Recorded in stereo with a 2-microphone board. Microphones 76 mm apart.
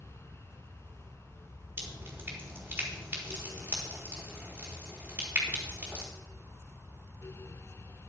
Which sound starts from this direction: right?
Dripping, at 1.8 s.